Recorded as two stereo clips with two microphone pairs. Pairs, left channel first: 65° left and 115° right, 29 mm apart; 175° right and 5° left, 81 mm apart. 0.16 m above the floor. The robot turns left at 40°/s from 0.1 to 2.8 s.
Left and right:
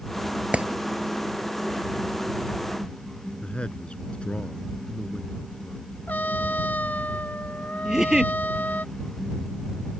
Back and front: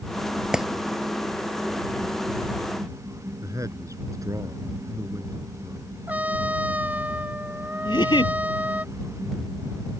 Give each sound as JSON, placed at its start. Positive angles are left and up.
{"t": 0.5, "sound": "a clap", "azimuth_deg": -80}
{"t": 3.4, "sound": "a man speaking", "azimuth_deg": 35}
{"t": 6.1, "sound": "a trumpet", "azimuth_deg": 75}
{"t": 7.8, "sound": "a giggle", "azimuth_deg": 180}